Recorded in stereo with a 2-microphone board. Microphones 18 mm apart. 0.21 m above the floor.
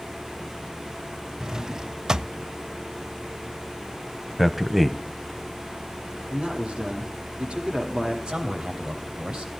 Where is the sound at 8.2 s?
60° right (ahead or behind), 7.5 m.